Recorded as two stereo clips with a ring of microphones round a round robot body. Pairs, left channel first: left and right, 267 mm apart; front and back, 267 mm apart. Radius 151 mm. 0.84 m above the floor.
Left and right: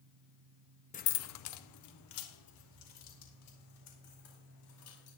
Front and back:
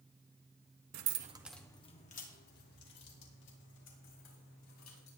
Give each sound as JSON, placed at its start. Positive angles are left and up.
{"t": 0.9, "sound": "keys jangling", "azimuth_deg": 155, "distance_m": 0.8}